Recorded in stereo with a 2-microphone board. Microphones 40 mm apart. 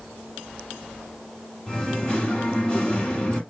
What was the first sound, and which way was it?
Singing, 20° left (ahead or behind).